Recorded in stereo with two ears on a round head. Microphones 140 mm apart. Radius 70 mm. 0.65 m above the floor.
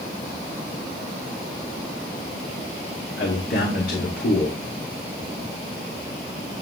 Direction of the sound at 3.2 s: 65° left (ahead or behind).